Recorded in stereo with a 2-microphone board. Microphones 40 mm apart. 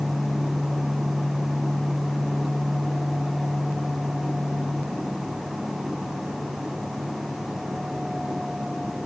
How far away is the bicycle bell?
I don't hear a bicycle bell.